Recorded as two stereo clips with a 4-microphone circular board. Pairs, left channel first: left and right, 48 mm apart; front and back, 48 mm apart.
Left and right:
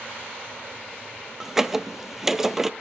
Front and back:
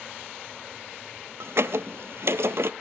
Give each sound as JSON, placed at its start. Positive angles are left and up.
{"t": 1.4, "sound": "a squeak", "azimuth_deg": -170, "distance_m": 0.6}